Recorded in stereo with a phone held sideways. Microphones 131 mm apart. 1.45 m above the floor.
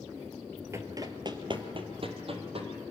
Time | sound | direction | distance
0.7 | running footsteps | 20° right (ahead or behind) | 1.5 m